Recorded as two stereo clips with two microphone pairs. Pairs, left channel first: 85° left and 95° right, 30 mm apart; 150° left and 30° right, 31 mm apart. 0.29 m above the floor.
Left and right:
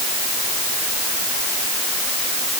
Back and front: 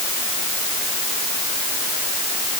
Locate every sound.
Only background noise.